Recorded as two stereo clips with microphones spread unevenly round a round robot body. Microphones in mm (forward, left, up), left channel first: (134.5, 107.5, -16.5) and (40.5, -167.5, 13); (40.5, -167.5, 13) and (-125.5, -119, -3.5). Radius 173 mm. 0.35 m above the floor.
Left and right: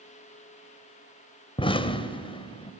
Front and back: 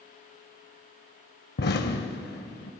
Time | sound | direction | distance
1.6 | an explosion | straight ahead | 0.6 m